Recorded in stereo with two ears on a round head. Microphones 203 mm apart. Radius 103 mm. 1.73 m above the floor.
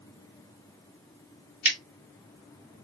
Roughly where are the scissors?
Centre.